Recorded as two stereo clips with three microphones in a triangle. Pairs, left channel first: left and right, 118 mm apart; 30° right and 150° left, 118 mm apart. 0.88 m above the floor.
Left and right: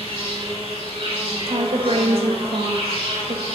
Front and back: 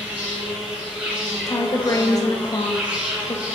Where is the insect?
130° right, 1.1 m.